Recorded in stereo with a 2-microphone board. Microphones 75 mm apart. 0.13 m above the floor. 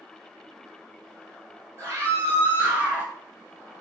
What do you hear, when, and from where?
1.8 s a scream: 35° right (ahead or behind), 3 m; by 3.1 s 15° right (ahead or behind), 2.5 m